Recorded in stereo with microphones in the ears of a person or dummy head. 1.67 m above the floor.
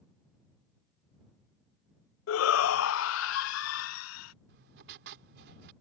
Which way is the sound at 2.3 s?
80° left.